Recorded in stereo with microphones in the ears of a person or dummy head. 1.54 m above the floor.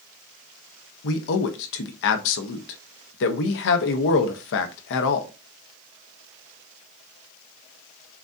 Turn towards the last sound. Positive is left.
turn(degrees=65)  # may be behind; listen again after turning